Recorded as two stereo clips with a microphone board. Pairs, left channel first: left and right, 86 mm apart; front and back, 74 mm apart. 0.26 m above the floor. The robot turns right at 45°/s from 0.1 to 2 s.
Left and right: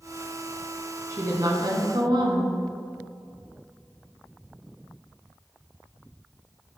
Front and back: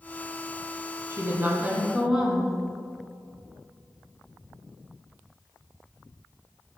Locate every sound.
1.1 s a woman speaking: 135° right, 2 m; by 2.5 s 95° right, 2 m